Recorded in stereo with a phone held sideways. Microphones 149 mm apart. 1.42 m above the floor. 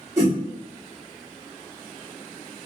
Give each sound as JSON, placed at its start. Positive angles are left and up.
{"t": 0.2, "sound": "a whoosh", "side_deg": -20, "distance_m": 1.1}